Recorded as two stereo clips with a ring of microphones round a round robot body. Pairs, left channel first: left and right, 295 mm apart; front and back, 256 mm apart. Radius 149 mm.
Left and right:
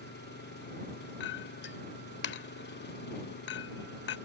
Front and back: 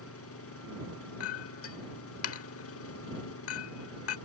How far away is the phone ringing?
I don't hear a phone ringing.